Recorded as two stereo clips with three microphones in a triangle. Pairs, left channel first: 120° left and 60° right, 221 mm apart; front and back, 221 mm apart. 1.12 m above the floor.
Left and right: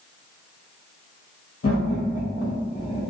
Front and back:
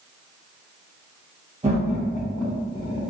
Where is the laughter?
120° left, 1.0 m; by 3.1 s 55° left, 1.7 m.